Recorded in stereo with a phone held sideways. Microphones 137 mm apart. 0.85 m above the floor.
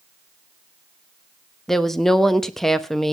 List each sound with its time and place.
1.7 s a woman speaking: 5° left (ahead or behind), 0.9 m